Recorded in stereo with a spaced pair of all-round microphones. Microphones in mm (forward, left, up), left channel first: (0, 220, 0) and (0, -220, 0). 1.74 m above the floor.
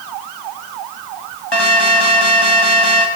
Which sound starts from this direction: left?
An alarm, at 1.5 s.